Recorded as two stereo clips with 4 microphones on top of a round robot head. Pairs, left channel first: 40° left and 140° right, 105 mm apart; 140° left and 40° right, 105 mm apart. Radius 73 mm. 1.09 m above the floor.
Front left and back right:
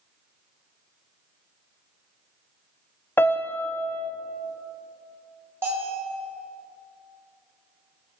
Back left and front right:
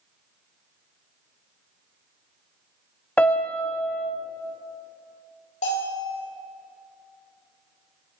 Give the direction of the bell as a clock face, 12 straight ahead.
7 o'clock.